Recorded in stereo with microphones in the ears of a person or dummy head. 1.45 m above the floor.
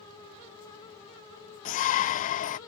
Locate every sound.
1.6 s a shout: 45° left (ahead or behind)